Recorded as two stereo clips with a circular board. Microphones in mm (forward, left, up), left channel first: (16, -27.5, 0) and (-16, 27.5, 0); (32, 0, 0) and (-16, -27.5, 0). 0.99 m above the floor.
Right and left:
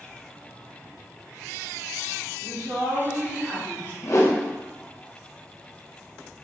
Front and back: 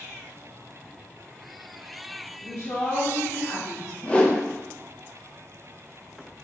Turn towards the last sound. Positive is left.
turn(degrees=-30)